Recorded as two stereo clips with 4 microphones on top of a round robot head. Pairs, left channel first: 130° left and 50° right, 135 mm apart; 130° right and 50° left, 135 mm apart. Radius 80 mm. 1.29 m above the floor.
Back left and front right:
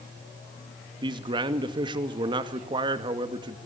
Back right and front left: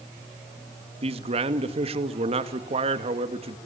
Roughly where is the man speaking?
Ahead.